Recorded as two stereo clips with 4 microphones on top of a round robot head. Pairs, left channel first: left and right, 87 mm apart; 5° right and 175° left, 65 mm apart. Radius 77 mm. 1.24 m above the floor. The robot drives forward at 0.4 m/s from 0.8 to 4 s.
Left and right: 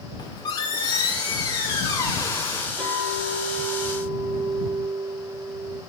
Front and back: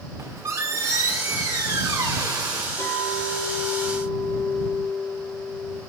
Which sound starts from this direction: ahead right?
A clink, at 2.8 s.